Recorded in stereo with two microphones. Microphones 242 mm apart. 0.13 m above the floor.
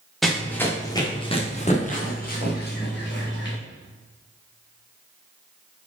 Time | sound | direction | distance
0.2 | running footsteps | centre (ahead or behind) | 2 m